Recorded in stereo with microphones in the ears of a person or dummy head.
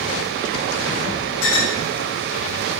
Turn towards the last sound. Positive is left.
turn(degrees=80)